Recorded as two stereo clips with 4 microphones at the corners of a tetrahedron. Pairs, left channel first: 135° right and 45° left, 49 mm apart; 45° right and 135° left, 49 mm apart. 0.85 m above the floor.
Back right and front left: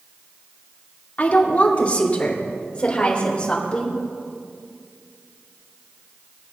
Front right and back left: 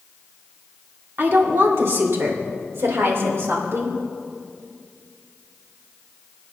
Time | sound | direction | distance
1.2 | a woman speaking | 170° left | 2 m